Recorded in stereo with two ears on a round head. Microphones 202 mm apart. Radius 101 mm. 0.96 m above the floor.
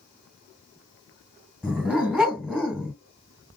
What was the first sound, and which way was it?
A dog barking, 5° right (ahead or behind).